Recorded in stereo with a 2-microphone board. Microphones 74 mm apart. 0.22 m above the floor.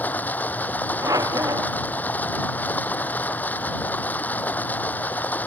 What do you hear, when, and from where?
0.0 s running water: 25° left (ahead or behind)
1.0 s a squeak: 60° right (ahead or behind)